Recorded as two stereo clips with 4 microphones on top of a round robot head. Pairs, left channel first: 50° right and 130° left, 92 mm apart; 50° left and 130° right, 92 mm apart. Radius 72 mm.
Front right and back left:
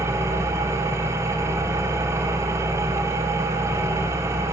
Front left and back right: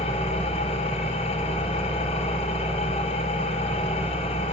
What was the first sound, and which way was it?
An engine running, 70° left.